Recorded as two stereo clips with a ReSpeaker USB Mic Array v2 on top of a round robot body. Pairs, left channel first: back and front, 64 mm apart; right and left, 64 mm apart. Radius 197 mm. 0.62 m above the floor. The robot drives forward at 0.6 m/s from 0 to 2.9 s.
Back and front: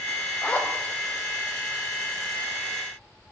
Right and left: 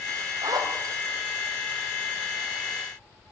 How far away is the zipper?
About 1.6 m.